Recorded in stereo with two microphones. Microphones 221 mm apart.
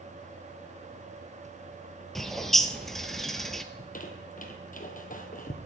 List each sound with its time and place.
2.1 s a bird: centre (ahead or behind), 0.8 m
3.7 s a squeak: 40° left (ahead or behind), 1.4 m